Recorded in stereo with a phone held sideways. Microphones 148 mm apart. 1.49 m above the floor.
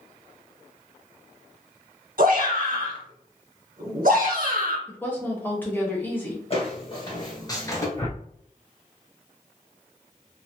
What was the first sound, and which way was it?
A shout, 65° right (ahead or behind).